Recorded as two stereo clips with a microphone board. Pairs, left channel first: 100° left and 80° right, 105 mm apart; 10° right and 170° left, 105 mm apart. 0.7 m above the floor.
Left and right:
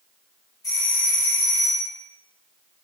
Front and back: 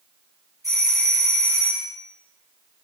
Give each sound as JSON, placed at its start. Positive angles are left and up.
{"t": 0.6, "sound": "a doorbell", "azimuth_deg": 130, "distance_m": 1.8}